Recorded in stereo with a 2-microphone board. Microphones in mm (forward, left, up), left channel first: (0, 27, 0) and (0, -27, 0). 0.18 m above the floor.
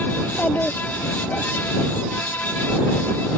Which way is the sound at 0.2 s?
25° left (ahead or behind).